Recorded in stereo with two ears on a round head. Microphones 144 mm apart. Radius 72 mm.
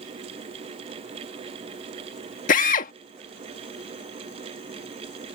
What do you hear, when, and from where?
2.5 s a drill: 55° left (ahead or behind)